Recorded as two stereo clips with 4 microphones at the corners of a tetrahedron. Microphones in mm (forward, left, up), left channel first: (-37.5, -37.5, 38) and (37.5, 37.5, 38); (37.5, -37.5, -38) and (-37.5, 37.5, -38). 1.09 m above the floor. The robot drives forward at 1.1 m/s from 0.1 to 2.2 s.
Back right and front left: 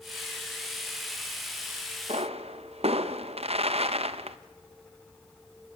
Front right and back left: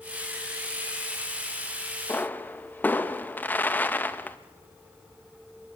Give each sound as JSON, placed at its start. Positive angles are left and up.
{"t": 2.1, "sound": "a pop", "azimuth_deg": 25, "distance_m": 1.1}